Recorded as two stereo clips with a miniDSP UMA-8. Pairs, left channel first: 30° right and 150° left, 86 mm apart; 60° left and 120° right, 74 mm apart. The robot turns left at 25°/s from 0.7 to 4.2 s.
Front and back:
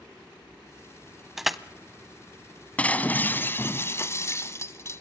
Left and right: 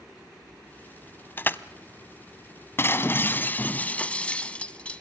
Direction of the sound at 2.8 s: 35° left.